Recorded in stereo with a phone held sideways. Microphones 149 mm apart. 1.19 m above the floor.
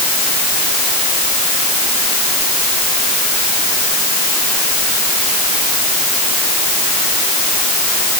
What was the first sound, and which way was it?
Only background noise.